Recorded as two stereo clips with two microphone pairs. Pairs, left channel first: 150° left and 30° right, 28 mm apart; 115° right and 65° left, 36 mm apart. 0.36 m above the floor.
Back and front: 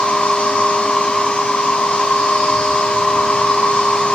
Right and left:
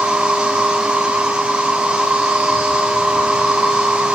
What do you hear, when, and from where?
0.0 s an insect: 130° left, 4.5 m